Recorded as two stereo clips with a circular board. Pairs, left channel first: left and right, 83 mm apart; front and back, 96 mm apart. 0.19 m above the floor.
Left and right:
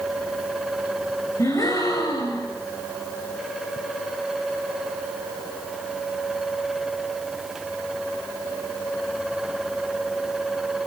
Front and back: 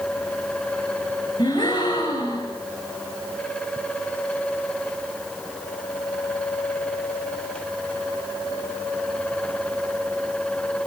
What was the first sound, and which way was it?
A gasp, 45° left.